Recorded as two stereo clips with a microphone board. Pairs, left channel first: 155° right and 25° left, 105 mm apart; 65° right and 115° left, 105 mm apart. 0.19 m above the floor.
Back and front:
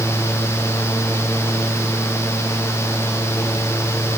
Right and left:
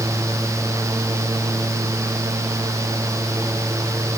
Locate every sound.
Only background noise.